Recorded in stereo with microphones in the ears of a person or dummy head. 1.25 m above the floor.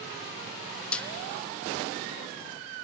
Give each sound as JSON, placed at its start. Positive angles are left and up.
{"t": 0.9, "sound": "a snare drum", "side_deg": 5, "distance_m": 0.6}